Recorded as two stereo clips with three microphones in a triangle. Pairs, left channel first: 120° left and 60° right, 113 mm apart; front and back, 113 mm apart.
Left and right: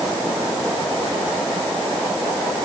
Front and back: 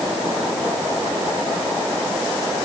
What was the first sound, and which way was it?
Only background noise.